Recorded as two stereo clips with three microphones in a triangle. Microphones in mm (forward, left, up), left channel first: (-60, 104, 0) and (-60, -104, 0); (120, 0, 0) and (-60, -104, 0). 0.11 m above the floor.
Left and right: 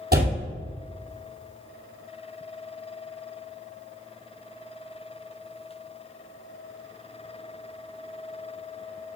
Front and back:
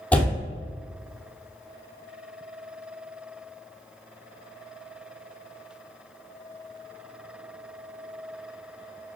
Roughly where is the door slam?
Ahead right.